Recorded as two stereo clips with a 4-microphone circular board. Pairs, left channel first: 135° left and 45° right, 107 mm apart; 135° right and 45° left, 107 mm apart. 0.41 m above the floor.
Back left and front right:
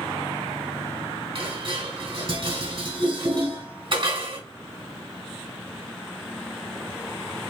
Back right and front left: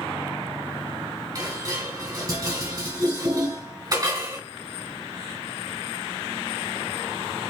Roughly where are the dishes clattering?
Ahead.